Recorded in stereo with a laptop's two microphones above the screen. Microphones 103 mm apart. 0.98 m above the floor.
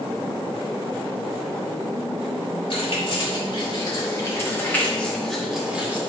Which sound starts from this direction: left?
Keys jangling, at 2.7 s.